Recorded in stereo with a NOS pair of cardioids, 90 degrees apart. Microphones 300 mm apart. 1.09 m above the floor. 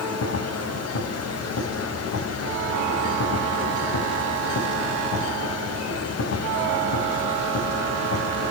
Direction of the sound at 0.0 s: 55° left.